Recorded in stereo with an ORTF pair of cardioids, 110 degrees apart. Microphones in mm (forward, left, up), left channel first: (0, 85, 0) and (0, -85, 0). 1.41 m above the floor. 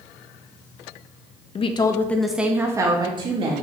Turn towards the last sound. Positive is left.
turn(degrees=-35)